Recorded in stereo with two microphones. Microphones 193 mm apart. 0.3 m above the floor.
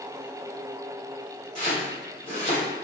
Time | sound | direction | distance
1.6 | chopping | 40° left (ahead or behind) | 1.7 m